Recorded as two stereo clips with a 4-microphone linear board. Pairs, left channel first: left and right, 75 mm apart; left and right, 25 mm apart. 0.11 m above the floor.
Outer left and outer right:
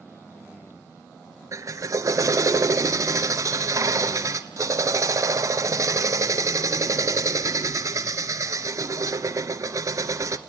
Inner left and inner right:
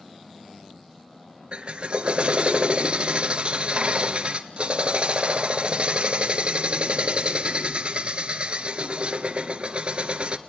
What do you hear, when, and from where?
1.5 s a drill: 45° right (ahead or behind), 1.1 m